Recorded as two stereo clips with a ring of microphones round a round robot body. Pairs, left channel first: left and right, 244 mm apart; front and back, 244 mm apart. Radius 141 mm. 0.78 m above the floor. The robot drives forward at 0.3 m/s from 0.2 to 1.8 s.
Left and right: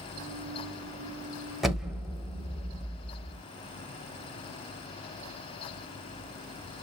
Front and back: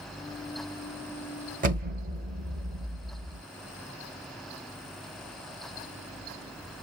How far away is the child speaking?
I don't hear a child speaking.